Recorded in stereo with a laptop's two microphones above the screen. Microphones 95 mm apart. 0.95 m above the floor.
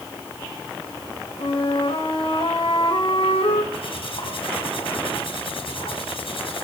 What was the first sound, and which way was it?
A flute, 80° left.